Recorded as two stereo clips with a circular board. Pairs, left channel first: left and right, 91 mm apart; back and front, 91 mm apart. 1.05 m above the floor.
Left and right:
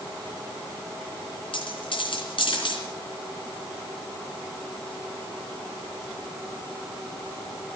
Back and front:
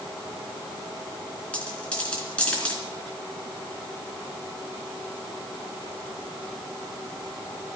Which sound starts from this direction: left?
A dropped coin, at 1.5 s.